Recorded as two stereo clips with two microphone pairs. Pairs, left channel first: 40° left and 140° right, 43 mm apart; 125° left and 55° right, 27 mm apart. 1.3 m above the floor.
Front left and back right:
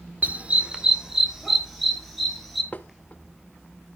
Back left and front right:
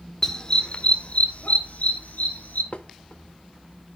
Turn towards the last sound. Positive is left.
turn(degrees=90)